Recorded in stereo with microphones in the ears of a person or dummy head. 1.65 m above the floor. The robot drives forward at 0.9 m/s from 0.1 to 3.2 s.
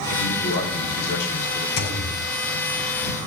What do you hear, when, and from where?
0.1 s a man speaking: 50° left (ahead or behind), 5 m; by 1.7 s 65° left (ahead or behind), 4 m
1.8 s a thud: 75° left (ahead or behind), 4.5 m; by 2.1 s 70° left (ahead or behind), 4.5 m